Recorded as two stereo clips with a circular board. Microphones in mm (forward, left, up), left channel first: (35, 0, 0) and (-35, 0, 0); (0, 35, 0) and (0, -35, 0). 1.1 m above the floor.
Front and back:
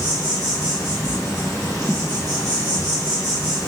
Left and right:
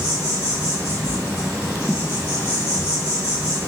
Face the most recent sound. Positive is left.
turn(degrees=-25)